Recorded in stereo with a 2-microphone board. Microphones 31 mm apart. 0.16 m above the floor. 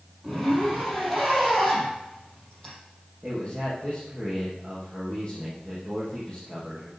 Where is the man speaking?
10° left (ahead or behind), 5 m.